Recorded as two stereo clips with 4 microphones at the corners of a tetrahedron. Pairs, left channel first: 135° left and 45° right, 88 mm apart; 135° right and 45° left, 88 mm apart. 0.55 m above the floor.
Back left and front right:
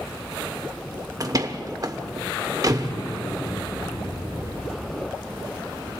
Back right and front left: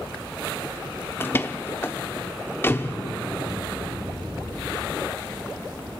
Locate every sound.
1.2 s a door slam: 75° right, 1.0 m
2.9 s an explosion: 140° left, 4.5 m